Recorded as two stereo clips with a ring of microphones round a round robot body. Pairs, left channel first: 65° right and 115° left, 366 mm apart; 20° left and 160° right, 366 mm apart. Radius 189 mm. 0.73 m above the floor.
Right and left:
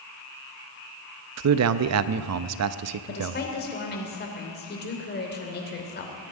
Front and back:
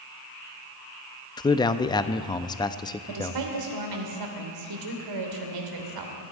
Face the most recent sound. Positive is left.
turn(degrees=-130)